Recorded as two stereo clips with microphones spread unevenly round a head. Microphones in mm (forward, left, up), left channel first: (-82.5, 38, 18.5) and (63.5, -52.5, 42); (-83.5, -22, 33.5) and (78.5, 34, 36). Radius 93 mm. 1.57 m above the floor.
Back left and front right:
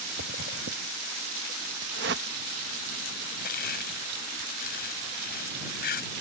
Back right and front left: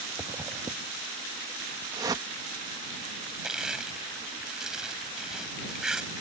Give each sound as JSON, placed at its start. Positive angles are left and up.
{"t": 0.2, "sound": "a zipper", "azimuth_deg": -55}
{"t": 1.9, "sound": "a whoosh", "azimuth_deg": -50}
{"t": 3.4, "sound": "crushing", "azimuth_deg": 105}